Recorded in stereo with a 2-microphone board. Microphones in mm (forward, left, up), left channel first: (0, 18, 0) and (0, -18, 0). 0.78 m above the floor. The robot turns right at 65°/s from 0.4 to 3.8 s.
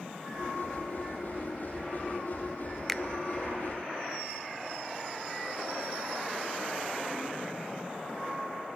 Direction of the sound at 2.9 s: 5° left (ahead or behind).